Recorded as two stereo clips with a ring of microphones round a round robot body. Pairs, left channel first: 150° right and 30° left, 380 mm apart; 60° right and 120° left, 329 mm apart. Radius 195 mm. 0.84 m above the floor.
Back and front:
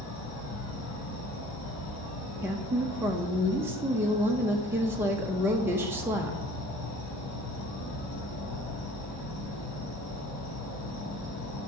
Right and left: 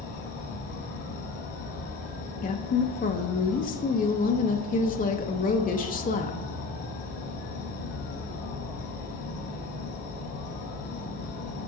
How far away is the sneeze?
I don't hear a sneeze.